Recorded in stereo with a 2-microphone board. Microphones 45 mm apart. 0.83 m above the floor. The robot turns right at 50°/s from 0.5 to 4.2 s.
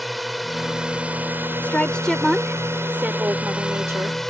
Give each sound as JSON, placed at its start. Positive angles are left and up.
{"t": 0.0, "sound": "a drone", "azimuth_deg": 180}
{"t": 1.6, "sound": "a woman speaking", "azimuth_deg": 145}